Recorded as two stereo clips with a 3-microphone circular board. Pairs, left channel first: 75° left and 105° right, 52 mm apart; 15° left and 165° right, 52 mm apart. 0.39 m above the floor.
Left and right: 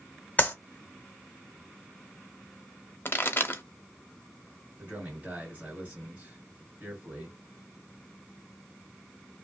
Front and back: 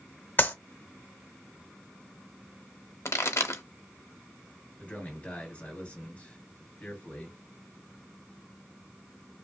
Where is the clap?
30° left, 0.8 m.